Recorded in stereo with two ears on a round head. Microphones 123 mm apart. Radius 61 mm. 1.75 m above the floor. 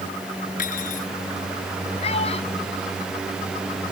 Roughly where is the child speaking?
Left.